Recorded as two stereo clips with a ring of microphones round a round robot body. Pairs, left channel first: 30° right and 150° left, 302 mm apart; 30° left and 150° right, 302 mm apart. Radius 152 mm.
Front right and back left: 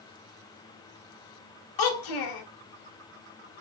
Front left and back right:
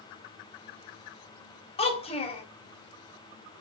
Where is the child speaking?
40° right, 1.2 m.